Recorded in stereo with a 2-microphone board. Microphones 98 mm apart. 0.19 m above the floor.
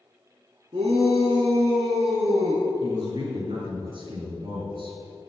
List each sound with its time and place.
0.7 s a shout: 55° right (ahead or behind), 1.9 m; by 2.7 s 50° right (ahead or behind), 2 m
2.8 s a man speaking: 55° right (ahead or behind), 3.5 m